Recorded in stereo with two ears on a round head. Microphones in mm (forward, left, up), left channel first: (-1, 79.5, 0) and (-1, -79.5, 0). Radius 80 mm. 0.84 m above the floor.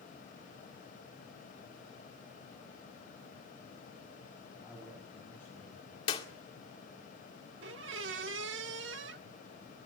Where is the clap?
25° left (ahead or behind), 2 m.